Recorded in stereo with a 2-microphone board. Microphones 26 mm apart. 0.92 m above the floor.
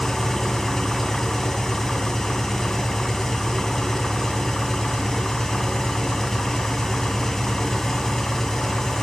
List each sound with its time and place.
0.0 s an engine running: 10° left (ahead or behind), 2 m